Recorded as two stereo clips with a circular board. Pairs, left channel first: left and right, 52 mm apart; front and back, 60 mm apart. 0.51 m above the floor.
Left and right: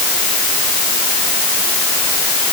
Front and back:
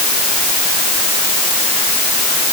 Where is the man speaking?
I don't hear a man speaking.